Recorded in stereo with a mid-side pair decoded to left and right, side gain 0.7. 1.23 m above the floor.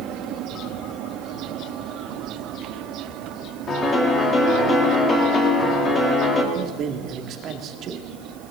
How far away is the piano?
About 3 m.